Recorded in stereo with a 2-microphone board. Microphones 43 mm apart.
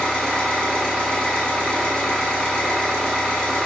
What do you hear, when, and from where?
0.0 s an engine running: 20° left (ahead or behind), 1.3 m